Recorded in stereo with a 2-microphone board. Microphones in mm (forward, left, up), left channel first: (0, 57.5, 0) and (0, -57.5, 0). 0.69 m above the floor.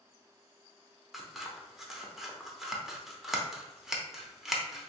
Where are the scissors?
5° right (ahead or behind), 0.7 m.